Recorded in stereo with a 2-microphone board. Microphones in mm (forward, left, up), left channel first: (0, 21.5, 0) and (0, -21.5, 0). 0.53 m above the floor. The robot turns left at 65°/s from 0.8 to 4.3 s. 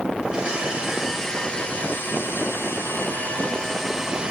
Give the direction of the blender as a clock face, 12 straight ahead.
5 o'clock.